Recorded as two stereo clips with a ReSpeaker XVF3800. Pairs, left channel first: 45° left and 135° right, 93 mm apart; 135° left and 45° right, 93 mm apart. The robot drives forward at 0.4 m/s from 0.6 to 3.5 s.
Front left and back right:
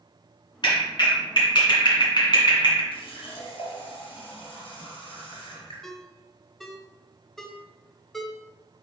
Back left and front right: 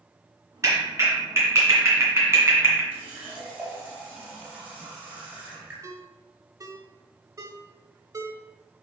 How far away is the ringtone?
About 0.9 m.